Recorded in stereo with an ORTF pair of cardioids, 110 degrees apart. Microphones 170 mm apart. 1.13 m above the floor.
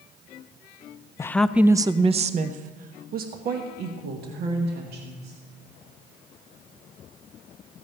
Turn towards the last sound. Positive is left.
turn(degrees=-75)